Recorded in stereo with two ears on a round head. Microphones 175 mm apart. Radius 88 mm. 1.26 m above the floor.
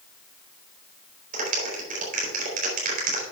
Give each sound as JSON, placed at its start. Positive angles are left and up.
{"t": 1.3, "sound": "a clap", "side_deg": -40, "distance_m": 4.0}